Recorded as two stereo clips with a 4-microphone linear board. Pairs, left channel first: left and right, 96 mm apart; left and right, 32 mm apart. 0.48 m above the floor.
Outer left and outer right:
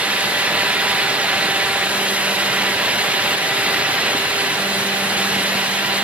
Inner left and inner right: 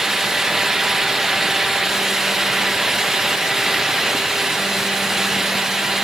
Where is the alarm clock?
No alarm clock in this recording.